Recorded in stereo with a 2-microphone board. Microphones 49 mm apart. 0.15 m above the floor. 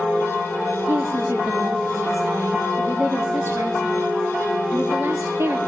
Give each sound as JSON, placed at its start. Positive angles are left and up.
{"t": 0.9, "sound": "a woman speaking", "side_deg": -60, "distance_m": 3.0}